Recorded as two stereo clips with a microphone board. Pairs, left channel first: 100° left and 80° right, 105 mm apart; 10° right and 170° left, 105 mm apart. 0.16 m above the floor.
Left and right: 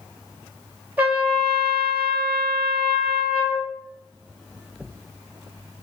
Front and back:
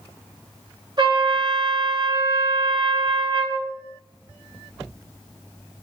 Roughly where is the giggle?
No giggle in this recording.